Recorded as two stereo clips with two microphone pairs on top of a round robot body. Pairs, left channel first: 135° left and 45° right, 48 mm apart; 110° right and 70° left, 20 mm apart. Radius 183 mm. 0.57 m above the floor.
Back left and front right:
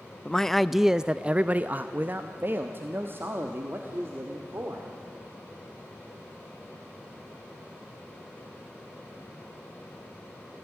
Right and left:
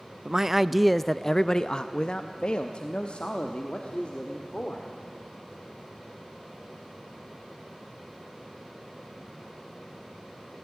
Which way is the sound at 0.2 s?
90° left.